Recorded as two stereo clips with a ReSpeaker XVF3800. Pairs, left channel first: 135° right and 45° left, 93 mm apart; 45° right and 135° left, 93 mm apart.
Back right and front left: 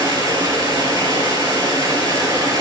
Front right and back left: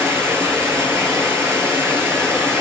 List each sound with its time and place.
0.0 s running water: 80° left, 1.8 m